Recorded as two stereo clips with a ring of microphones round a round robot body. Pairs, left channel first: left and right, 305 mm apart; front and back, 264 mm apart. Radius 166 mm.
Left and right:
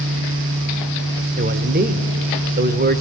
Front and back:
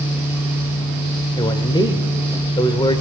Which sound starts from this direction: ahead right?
A man speaking, at 1.4 s.